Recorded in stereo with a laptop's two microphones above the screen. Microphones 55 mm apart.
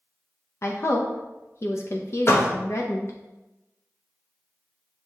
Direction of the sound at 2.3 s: 50° left (ahead or behind).